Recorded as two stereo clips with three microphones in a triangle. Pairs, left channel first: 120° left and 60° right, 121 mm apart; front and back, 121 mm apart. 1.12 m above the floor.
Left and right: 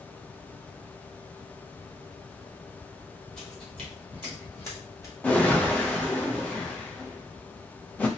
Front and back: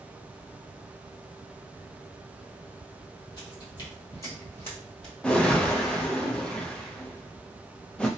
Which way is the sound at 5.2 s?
65° left.